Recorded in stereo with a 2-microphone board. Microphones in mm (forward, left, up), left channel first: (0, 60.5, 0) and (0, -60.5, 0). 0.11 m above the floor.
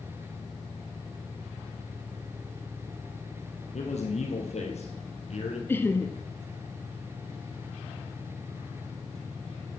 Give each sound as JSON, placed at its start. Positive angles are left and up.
{"t": 3.7, "sound": "a man speaking", "side_deg": 70, "distance_m": 4.5}
{"t": 5.7, "sound": "laughter", "side_deg": 20, "distance_m": 1.1}